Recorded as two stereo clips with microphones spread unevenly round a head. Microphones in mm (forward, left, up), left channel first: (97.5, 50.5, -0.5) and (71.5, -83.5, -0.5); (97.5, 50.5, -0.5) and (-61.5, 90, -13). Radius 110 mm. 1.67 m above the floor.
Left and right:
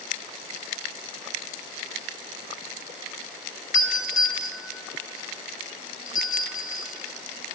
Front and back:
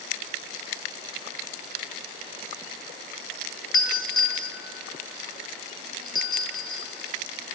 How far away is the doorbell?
About 3 m.